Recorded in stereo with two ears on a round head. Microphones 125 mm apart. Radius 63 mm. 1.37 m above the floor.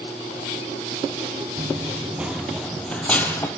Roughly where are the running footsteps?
Centre.